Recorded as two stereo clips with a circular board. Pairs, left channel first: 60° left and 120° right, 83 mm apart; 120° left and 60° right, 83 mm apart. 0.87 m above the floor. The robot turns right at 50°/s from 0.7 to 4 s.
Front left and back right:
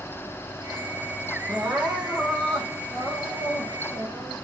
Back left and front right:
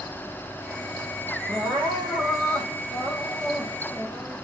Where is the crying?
65° right, 7.5 m; by 4.3 s 60° left, 7.5 m.